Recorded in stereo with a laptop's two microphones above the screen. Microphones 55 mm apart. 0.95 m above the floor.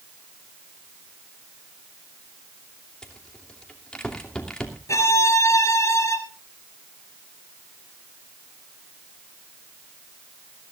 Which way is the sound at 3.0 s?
15° left (ahead or behind).